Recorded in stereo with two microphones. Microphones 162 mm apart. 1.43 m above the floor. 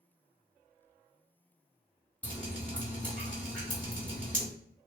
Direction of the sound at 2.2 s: 5° left (ahead or behind).